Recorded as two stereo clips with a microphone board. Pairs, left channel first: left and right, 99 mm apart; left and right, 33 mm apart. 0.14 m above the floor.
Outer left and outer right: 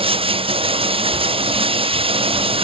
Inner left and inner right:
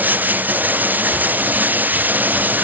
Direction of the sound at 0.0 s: 70° right (ahead or behind).